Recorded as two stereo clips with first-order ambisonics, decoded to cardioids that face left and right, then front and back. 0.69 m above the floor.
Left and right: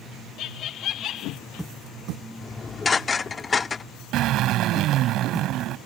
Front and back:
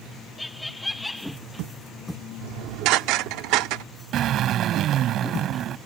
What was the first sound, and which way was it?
Laughter, 85° left.